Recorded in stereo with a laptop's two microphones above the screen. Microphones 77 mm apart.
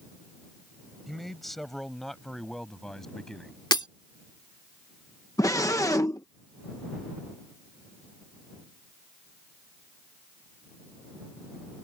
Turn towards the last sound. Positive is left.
turn(degrees=45)  # may be behind; listen again after turning